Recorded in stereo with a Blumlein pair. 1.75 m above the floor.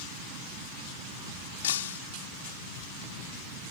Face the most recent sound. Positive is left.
turn(degrees=60)